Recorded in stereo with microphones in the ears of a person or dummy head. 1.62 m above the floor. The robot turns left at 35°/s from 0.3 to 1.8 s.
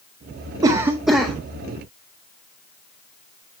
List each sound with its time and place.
0.6 s a cough: 15° right (ahead or behind), 0.5 m; by 1.4 s 10° left (ahead or behind), 0.5 m